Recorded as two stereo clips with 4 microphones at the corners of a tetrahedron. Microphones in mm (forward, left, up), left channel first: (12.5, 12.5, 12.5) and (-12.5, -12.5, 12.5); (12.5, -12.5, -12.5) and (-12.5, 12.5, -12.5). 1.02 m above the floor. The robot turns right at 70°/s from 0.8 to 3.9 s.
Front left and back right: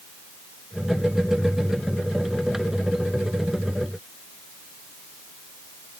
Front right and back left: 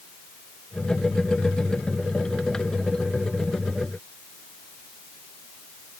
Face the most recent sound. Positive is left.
No sound to turn to.